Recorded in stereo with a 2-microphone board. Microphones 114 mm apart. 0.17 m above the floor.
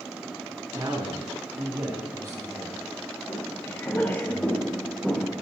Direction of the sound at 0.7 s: 40° right (ahead or behind).